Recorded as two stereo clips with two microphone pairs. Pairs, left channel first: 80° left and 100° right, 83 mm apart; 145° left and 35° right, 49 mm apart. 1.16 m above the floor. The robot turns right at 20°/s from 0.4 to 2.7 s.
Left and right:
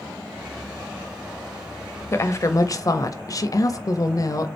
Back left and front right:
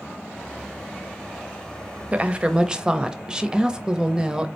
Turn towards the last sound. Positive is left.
turn(degrees=35)